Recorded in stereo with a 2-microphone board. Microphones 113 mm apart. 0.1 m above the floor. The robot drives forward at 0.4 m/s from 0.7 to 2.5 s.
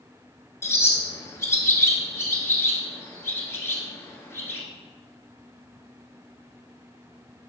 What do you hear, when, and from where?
0.6 s a bird: 25° left (ahead or behind), 1.1 m; by 4.6 s 20° left (ahead or behind), 1.2 m